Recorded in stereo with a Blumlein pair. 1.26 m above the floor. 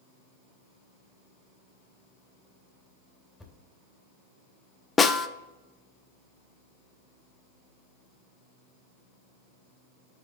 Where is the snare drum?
15° left, 0.6 m.